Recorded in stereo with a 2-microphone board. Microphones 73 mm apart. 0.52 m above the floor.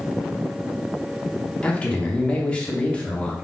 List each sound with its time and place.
1.6 s a man speaking: 15° left (ahead or behind), 0.7 m